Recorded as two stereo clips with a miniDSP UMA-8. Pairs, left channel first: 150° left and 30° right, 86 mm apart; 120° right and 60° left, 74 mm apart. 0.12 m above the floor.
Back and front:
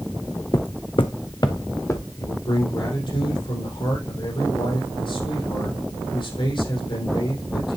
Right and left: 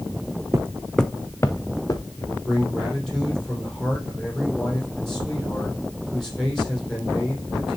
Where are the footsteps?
110° left, 0.7 m; by 2.0 s 155° right, 1.5 m.